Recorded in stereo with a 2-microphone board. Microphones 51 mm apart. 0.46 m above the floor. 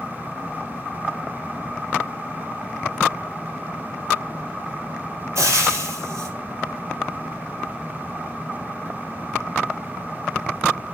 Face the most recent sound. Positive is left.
turn(degrees=-70)  # may be behind; listen again after turning